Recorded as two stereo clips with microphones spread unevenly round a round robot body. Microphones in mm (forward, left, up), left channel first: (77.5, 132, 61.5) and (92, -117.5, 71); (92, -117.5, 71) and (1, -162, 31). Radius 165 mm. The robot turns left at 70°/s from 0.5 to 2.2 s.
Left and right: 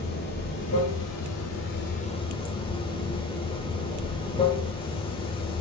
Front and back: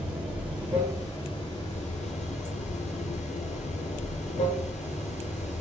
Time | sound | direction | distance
0.0 | running water | 140° left | 1.3 m